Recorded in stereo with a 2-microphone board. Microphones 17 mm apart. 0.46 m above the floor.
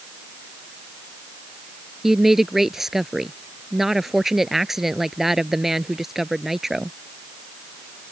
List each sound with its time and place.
2.0 s a woman speaking: 20° right (ahead or behind)